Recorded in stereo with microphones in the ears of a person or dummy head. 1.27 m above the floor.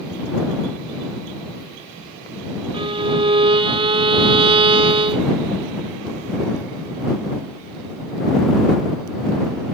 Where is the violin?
25° right (ahead or behind).